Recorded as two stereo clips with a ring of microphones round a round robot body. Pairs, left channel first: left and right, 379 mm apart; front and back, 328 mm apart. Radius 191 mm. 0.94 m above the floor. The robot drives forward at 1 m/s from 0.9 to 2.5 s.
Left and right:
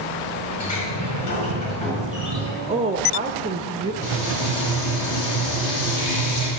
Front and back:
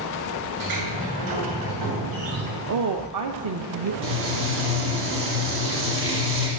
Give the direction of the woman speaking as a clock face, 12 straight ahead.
5 o'clock.